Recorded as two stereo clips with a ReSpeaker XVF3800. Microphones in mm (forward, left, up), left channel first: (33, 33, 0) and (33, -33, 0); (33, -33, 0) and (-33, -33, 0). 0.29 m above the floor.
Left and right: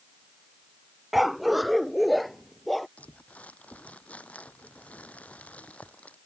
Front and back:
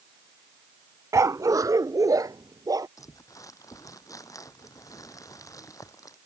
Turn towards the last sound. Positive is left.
turn(degrees=20)